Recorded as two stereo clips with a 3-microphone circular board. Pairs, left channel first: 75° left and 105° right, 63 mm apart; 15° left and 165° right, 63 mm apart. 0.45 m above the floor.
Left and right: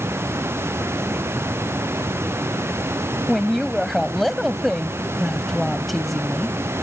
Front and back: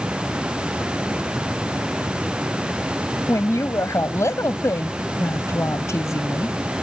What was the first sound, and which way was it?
A woman speaking, 10° right.